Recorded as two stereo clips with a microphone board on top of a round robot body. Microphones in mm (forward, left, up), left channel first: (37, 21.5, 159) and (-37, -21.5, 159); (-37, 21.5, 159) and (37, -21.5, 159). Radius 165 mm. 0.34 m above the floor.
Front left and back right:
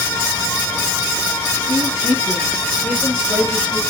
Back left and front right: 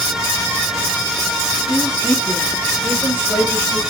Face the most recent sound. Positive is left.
turn(degrees=-155)